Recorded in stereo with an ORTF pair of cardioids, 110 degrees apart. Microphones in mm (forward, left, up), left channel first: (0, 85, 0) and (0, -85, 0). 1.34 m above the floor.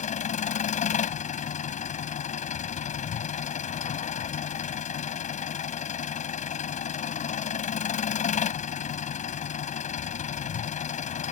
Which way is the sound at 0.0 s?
45° left.